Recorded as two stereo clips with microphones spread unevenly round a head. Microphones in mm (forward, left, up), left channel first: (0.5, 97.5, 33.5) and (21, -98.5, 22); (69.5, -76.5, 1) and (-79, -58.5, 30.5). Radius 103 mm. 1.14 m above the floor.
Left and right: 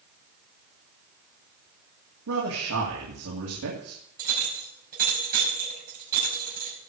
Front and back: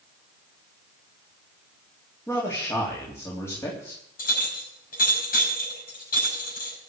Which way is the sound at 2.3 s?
80° right.